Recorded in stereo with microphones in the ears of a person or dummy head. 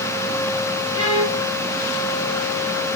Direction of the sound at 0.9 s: 30° left (ahead or behind).